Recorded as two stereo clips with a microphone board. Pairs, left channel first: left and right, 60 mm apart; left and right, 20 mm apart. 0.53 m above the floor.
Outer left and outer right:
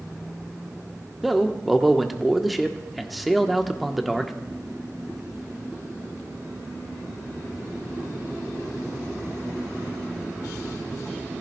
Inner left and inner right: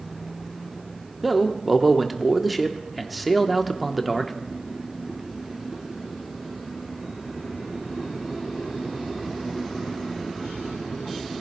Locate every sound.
1.2 s a man speaking: centre (ahead or behind), 0.9 m